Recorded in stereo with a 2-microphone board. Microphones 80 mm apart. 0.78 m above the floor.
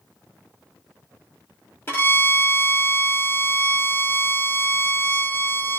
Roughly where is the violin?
Left.